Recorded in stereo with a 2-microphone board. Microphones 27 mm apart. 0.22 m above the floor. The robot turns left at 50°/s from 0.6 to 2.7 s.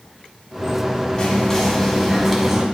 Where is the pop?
I don't hear a pop.